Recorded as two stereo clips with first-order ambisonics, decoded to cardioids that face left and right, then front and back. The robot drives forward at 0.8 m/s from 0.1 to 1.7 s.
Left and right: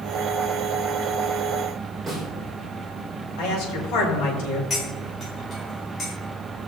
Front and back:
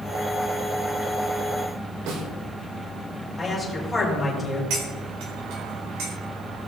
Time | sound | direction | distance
2.1 | a snare drum | 175° right | 3 m
3.4 | a man speaking | 90° left | 4.5 m
4.7 | cutlery clinking | 155° left | 3 m